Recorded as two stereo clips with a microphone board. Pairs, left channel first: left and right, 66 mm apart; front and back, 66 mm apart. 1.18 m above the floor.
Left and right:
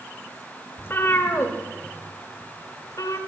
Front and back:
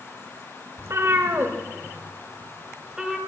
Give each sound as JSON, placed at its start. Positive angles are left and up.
{"t": 0.8, "sound": "a cat meowing", "azimuth_deg": 145, "distance_m": 1.9}